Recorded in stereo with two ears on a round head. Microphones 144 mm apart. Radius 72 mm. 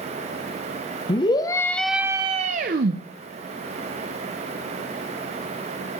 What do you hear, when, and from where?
1.1 s a scream: 30° left (ahead or behind), 1.1 m; by 3.0 s 65° right (ahead or behind), 0.9 m